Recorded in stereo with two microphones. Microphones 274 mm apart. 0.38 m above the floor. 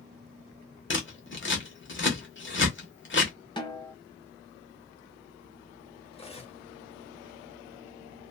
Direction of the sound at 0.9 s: 45° left (ahead or behind).